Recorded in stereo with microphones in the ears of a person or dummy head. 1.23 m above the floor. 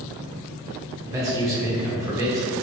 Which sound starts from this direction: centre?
A man speaking, at 1.0 s.